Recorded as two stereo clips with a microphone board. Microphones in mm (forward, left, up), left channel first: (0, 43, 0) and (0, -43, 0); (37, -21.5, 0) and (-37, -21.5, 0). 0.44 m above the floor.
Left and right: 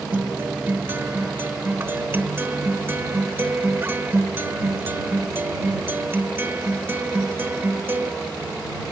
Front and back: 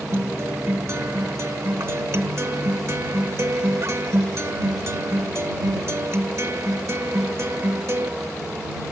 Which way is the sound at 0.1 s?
145° right.